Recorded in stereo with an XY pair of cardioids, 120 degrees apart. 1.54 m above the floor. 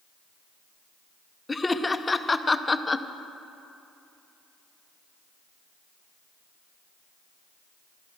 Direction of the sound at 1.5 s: 20° left.